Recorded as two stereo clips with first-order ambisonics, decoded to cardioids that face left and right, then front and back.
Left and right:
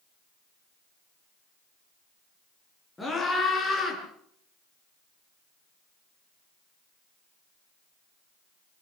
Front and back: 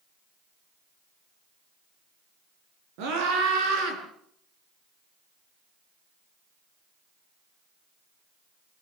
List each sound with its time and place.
3.0 s a scream: 170° left, 8 m; by 4.0 s 160° left, 8 m